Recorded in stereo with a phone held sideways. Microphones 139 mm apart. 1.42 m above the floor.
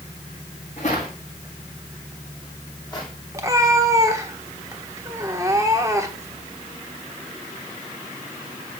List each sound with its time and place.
0.8 s footsteps: 55° left (ahead or behind), 4.5 m; by 3.1 s 25° left (ahead or behind), 3.5 m
3.3 s a cat meowing: 20° right (ahead or behind), 1.1 m